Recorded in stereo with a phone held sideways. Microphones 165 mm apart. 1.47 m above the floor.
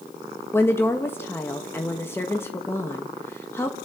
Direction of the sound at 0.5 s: 15° left (ahead or behind).